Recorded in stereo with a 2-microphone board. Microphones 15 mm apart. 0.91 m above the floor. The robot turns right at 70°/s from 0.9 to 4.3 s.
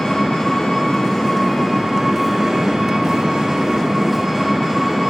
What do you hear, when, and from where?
0.0 s an engine running: 105° left, 5.5 m; by 5.1 s 20° right, 5.5 m